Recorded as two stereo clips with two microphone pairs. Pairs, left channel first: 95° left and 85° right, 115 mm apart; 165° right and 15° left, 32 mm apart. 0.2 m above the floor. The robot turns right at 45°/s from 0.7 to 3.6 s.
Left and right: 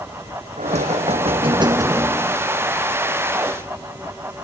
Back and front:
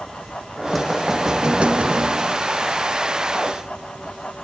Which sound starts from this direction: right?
Knocking, at 0.6 s.